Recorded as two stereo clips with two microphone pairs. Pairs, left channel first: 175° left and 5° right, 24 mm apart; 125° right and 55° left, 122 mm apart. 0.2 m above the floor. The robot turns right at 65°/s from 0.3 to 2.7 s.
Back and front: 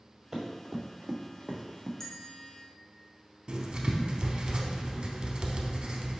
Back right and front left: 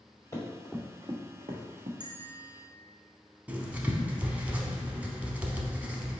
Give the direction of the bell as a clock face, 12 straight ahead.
9 o'clock.